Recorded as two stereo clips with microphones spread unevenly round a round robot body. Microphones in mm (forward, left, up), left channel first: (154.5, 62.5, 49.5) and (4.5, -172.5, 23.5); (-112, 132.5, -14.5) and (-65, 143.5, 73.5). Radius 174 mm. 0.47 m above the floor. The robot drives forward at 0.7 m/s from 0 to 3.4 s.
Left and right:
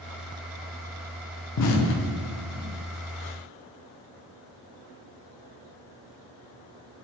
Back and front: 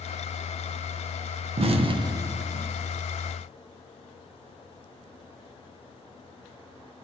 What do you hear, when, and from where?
1.6 s an explosion: 65° left, 0.5 m; by 2.6 s 150° left, 0.8 m